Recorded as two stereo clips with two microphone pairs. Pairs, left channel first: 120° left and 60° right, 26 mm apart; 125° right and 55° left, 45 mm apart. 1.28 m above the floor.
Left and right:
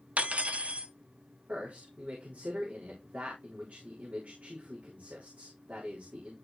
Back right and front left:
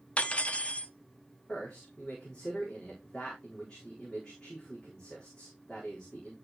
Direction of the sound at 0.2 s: 75° right.